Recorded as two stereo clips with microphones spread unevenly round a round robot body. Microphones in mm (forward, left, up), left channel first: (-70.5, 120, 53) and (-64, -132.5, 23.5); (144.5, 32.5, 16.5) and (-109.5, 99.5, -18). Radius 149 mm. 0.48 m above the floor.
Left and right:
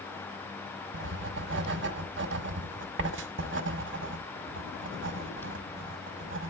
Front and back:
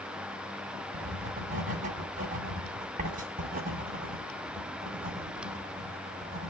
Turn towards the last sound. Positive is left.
turn(degrees=-130)